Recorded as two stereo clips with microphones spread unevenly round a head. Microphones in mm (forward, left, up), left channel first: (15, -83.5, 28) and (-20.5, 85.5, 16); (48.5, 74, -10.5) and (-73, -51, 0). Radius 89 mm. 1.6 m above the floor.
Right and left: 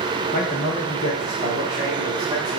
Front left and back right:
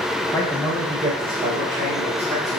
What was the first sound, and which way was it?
A man speaking, 30° right.